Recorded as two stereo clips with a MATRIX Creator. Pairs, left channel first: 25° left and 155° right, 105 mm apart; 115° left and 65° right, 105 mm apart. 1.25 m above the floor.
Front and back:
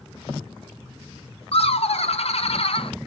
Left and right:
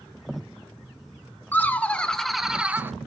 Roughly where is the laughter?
Ahead left.